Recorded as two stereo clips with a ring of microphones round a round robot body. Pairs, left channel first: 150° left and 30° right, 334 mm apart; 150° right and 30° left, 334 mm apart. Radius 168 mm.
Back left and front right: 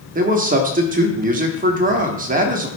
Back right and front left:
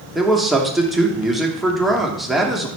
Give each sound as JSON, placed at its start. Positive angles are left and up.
{"t": 0.1, "sound": "a man speaking", "azimuth_deg": -60, "distance_m": 0.9}